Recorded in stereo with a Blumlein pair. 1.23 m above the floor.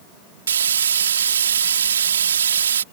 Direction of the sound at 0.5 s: 65° right.